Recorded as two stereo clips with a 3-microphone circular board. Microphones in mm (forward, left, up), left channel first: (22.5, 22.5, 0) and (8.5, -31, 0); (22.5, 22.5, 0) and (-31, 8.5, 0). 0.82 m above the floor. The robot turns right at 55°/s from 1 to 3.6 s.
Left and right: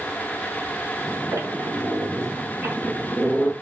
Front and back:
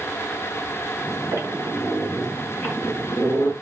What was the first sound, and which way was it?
A squeak, 130° right.